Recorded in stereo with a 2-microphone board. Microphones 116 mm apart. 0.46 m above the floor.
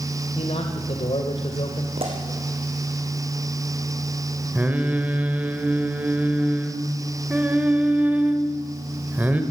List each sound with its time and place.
0.3 s a man speaking: 60° left (ahead or behind), 1.9 m
2.0 s a pop: 55° right (ahead or behind), 5 m
4.5 s singing: 15° right (ahead or behind), 2 m